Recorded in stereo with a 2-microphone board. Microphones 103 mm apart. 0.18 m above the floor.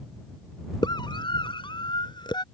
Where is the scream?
45° left (ahead or behind).